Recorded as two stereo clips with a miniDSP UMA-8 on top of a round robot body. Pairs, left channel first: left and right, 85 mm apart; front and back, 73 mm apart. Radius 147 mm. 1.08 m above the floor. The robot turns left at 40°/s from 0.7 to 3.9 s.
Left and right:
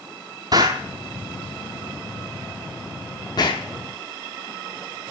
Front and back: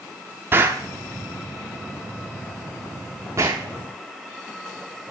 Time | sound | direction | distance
0.5 | an explosion | 130° right | 0.6 m